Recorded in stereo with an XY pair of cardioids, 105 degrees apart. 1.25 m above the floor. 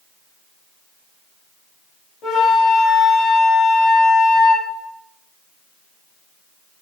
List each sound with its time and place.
2.2 s a flute: 65° left, 3 m